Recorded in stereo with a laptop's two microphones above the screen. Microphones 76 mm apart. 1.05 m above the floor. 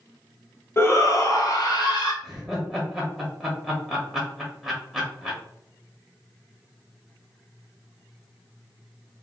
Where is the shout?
35° left (ahead or behind), 0.6 m; by 2.1 s 60° left (ahead or behind), 1.2 m.